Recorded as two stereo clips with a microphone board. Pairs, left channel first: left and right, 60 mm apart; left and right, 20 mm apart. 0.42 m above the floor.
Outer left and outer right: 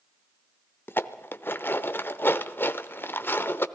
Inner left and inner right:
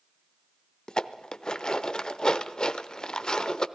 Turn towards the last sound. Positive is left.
turn(degrees=40)  # may be behind; listen again after turning